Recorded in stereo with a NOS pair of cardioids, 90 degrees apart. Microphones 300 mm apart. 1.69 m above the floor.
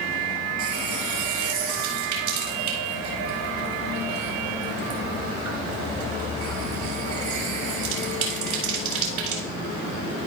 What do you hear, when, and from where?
0.6 s a running tap: 65° right, 4 m